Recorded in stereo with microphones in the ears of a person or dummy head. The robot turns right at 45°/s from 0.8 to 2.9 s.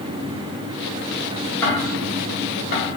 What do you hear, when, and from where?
1.6 s ticking: 15° left (ahead or behind), 0.7 m; by 2.9 s 45° left (ahead or behind), 0.7 m